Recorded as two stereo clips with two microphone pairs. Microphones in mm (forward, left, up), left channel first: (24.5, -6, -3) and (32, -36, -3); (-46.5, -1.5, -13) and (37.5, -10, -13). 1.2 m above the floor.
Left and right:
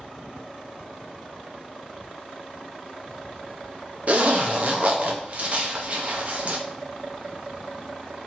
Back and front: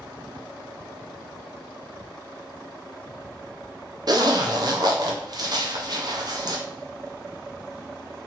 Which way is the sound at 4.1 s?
40° right.